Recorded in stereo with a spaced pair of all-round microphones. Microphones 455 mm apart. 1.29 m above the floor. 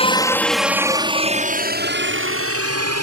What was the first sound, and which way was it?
A helicopter, 10° left (ahead or behind).